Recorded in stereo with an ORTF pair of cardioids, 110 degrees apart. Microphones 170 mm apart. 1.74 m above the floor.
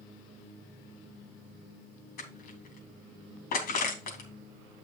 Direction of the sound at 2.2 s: 65° left.